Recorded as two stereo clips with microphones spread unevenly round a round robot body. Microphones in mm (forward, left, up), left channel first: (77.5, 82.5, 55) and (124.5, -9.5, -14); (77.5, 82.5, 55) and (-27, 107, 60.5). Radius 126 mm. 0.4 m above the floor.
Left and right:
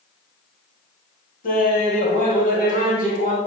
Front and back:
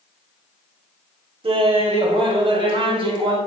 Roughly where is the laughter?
Behind left.